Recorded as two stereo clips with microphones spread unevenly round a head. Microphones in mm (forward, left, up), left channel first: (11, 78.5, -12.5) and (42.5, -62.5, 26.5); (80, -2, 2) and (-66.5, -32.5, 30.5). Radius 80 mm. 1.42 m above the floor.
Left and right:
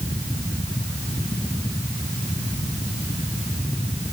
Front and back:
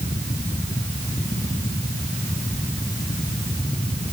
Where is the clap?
I don't hear a clap.